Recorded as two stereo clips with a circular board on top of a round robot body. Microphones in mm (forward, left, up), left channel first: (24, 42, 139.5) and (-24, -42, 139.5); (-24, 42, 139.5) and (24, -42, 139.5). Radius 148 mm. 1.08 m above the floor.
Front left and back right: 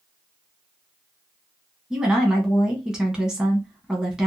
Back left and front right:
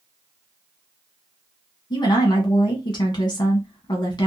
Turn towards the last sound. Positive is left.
turn(degrees=160)